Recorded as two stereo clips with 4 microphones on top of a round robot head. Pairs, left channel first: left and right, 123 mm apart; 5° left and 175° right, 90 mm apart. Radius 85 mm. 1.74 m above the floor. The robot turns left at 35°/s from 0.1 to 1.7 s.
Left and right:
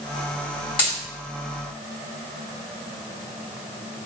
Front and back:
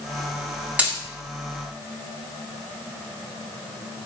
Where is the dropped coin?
125° left, 1.8 m; by 1.0 s 120° left, 1.8 m.